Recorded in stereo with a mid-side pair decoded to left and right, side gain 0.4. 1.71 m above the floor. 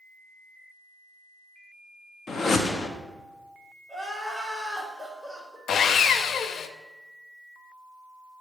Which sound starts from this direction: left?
Sawing, at 5.7 s.